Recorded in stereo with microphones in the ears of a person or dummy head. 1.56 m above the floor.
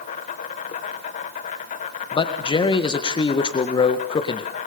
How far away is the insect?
About 2 m.